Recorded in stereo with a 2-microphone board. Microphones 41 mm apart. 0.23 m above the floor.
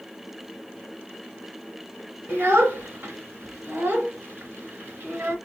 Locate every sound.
2.3 s a child speaking: 60° right (ahead or behind), 2.5 m